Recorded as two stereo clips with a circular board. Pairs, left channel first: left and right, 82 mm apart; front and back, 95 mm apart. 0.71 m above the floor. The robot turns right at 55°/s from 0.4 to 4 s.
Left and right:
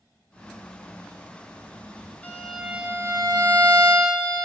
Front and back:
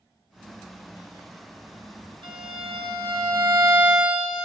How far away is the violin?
About 1.2 m.